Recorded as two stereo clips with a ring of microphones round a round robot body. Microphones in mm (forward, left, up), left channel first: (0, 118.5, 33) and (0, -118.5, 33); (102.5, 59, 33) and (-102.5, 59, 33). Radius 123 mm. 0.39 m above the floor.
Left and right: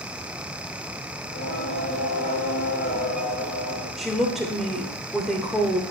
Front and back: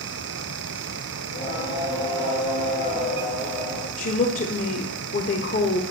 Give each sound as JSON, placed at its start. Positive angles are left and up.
{"t": 1.2, "sound": "singing", "azimuth_deg": 35, "distance_m": 6.0}
{"t": 4.0, "sound": "a woman speaking", "azimuth_deg": 0, "distance_m": 1.3}